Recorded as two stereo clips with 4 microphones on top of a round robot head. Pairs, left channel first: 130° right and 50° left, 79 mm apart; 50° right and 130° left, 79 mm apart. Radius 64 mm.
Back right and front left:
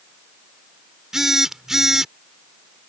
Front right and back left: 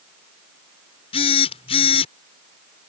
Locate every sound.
1.1 s a phone buzzing: 35° right